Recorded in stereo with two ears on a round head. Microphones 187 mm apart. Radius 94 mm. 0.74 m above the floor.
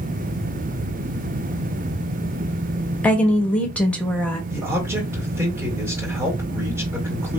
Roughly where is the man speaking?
Centre.